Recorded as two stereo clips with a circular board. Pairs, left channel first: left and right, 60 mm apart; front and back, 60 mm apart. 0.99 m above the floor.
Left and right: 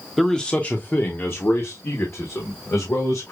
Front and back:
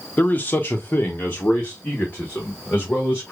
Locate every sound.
0.2 s a man speaking: 5° left, 0.7 m; by 3.3 s 60° left, 2.5 m